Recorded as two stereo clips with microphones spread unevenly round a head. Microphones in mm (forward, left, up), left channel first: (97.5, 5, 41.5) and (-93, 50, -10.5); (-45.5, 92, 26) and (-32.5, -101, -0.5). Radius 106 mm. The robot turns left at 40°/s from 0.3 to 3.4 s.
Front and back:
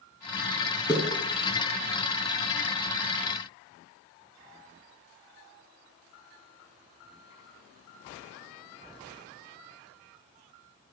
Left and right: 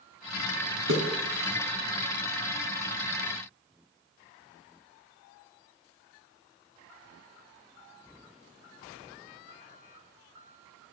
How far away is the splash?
About 2 m.